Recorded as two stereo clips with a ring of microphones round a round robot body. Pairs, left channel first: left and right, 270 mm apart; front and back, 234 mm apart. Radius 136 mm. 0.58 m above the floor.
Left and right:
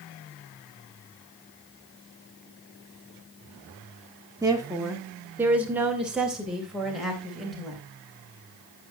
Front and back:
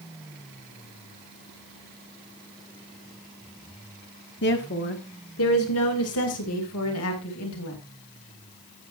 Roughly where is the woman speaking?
Ahead.